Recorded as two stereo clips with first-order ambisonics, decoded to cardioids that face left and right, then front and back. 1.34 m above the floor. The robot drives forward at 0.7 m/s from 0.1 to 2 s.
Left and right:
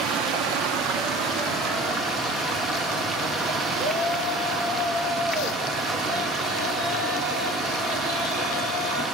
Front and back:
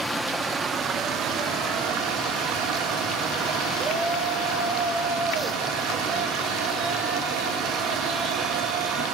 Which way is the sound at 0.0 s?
85° right.